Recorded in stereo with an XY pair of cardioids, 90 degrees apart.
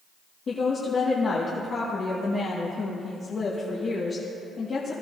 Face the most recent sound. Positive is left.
turn(degrees=50)